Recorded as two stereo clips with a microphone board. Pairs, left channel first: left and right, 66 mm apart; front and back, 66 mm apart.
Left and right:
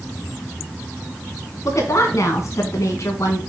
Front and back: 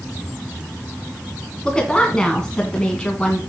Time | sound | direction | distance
1.6 | a woman speaking | 75° left | 2.5 m